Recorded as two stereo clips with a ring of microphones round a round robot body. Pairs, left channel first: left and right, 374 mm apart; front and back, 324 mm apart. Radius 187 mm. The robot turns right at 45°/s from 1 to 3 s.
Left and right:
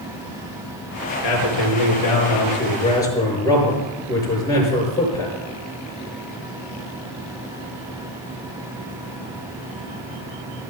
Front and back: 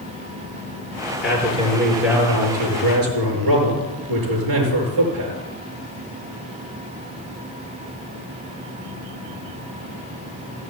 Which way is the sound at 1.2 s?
90° left.